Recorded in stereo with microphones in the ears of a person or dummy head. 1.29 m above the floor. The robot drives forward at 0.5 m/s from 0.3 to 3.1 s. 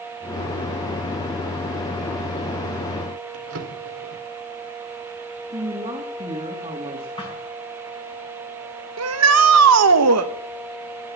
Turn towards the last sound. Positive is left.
turn(degrees=-85)